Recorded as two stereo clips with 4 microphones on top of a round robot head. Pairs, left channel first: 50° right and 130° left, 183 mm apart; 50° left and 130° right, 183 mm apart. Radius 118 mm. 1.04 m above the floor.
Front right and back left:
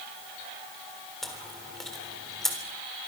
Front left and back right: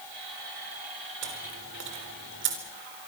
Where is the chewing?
135° right, 4 m.